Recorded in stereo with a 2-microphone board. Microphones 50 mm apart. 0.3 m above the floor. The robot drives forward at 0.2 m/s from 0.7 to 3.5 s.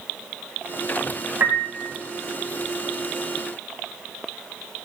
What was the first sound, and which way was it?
A piano, 40° right (ahead or behind).